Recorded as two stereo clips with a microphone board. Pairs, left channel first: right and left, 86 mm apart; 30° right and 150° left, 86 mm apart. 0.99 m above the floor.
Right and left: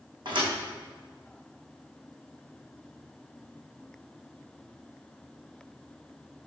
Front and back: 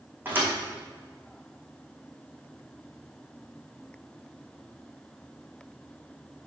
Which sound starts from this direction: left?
A thud, at 0.2 s.